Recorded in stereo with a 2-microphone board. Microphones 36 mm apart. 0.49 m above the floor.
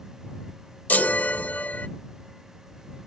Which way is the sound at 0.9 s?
55° left (ahead or behind).